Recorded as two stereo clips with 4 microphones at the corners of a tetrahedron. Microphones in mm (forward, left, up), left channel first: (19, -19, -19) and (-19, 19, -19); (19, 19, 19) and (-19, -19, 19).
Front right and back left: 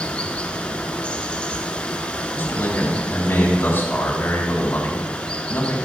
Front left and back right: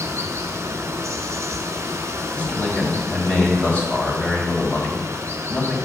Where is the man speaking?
10° right, 2.5 m.